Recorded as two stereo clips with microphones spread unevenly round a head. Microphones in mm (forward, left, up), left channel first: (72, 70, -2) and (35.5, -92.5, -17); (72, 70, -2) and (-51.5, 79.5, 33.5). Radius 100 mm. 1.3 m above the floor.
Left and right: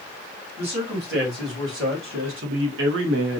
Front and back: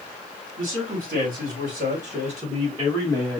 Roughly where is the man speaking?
Behind right.